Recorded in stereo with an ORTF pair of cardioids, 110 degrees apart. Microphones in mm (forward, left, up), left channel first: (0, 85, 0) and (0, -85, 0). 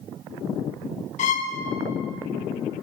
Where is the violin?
45° left, 1.1 m.